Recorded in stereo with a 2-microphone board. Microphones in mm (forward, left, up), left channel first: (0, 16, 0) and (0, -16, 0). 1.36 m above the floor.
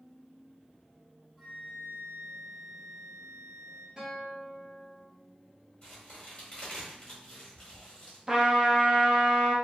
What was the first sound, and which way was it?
A flute, centre (ahead or behind).